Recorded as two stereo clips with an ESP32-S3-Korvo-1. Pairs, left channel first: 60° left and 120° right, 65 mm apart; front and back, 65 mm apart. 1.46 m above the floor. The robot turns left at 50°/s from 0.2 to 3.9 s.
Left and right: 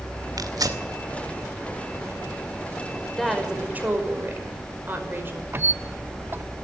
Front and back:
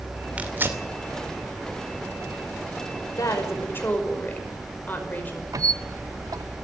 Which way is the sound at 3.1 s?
20° right.